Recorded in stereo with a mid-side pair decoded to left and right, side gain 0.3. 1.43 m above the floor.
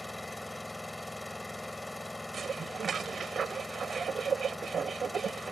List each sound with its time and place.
0.0 s an engine running: 20° left
2.3 s dishes clattering: 60° right